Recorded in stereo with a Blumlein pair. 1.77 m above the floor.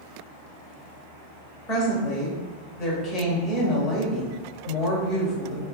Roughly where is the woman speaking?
Ahead left.